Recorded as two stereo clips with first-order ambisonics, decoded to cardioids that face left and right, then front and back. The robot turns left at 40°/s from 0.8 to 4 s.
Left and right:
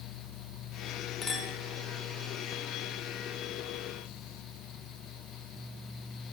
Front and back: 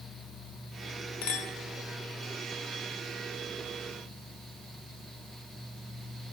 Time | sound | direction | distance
1.2 | a clink | 20° left | 1.1 m